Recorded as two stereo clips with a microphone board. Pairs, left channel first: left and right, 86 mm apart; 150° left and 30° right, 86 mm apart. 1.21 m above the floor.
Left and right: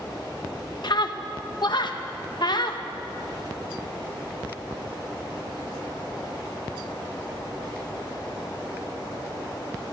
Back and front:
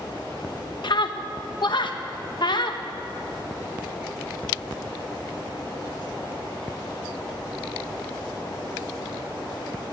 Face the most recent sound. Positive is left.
turn(degrees=120)